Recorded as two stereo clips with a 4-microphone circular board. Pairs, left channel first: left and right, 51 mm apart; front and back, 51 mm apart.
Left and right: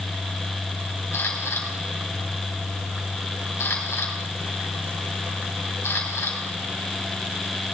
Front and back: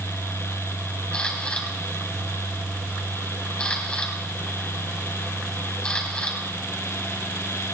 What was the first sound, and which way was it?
A camera shutter, 65° left.